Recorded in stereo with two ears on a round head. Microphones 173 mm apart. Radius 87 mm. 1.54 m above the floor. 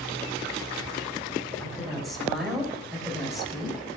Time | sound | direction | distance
1.6 | a woman speaking | centre (ahead or behind) | 8 m